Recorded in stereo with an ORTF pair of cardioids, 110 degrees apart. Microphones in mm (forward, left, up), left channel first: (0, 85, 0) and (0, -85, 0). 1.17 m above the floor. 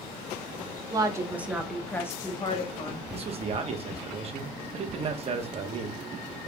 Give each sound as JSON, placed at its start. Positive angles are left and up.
{"t": 0.9, "sound": "a woman speaking", "azimuth_deg": -25, "distance_m": 1.1}
{"t": 3.1, "sound": "a man speaking", "azimuth_deg": -35, "distance_m": 1.1}